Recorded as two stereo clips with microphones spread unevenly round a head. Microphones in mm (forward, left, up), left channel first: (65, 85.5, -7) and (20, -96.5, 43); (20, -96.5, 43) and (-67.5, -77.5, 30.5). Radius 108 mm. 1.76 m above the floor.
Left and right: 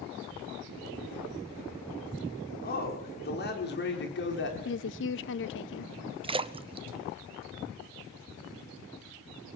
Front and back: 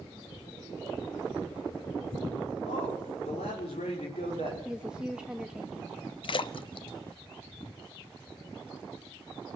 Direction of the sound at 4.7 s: 75° left.